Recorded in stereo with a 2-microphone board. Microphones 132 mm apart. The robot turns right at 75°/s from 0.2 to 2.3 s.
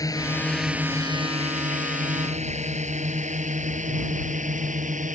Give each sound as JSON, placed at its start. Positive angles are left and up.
{"t": 0.0, "sound": "a drone", "side_deg": 25}